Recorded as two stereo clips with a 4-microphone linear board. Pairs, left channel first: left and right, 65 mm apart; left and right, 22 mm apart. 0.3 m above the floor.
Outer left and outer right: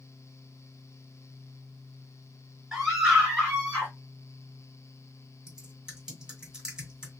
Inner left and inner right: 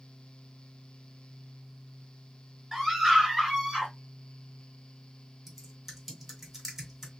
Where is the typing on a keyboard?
10° right (ahead or behind), 2 m.